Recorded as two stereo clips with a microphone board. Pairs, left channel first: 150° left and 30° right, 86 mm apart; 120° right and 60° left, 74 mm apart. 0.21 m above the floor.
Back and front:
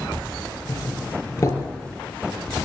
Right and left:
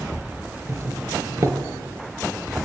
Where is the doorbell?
100° left, 5 m.